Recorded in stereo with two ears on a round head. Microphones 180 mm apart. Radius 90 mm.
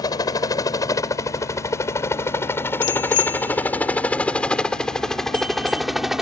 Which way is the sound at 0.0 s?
20° left (ahead or behind).